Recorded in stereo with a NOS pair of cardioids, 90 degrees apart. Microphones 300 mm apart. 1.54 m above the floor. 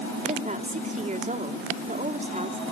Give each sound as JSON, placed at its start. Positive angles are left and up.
{"t": 0.2, "sound": "a woman speaking", "azimuth_deg": -25, "distance_m": 5.5}